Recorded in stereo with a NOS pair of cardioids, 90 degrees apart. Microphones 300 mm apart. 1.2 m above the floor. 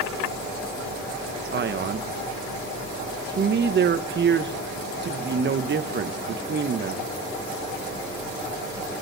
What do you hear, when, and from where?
1.5 s a man speaking: 35° right, 1.0 m